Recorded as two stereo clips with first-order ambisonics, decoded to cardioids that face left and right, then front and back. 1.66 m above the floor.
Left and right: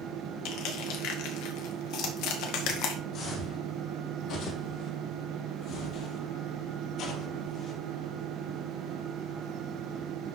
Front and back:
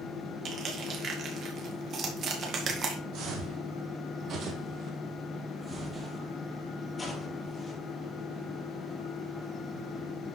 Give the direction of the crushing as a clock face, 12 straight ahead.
8 o'clock.